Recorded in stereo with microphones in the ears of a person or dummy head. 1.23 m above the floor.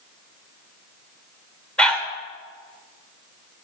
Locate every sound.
1.8 s a dog barking: 5° left (ahead or behind), 1.5 m